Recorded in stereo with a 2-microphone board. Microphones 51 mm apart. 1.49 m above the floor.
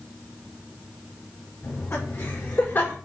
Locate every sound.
1.6 s laughter: 55° left (ahead or behind), 5 m; by 3.0 s 45° left (ahead or behind), 5.5 m